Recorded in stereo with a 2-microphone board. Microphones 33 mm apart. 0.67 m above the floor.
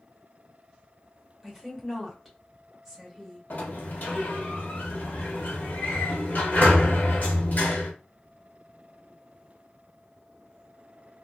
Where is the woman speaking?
5° left (ahead or behind), 1.2 m.